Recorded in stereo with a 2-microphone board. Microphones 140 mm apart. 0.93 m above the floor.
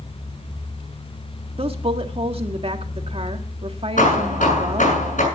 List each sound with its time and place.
1.6 s a woman speaking: 45° right (ahead or behind), 1.7 m
4.0 s hammering: 75° left (ahead or behind), 7 m